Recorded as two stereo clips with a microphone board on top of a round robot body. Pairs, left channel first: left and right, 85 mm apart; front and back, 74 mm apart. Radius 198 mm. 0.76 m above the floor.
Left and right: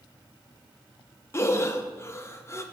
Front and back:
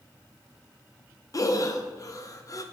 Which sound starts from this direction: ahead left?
Breathing, at 1.3 s.